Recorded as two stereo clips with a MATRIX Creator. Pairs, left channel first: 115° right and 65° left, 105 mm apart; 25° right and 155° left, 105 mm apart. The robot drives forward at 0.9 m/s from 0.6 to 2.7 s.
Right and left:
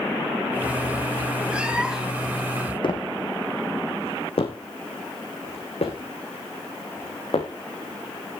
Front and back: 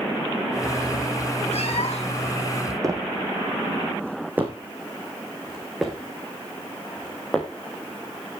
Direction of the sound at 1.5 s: 10° right.